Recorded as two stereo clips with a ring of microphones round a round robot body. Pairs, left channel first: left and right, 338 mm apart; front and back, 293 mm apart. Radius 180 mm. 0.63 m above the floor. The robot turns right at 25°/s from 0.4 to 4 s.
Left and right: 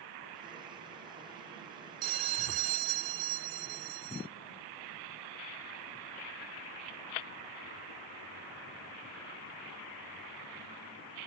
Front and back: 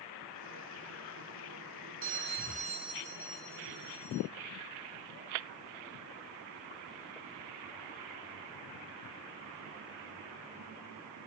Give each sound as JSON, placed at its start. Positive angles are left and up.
{"t": 2.0, "sound": "a bell", "azimuth_deg": -125, "distance_m": 0.7}